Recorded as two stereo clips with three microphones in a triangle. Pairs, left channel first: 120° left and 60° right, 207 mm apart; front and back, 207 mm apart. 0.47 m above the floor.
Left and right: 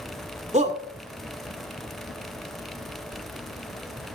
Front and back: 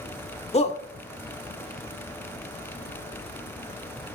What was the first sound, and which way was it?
A shout, 35° right.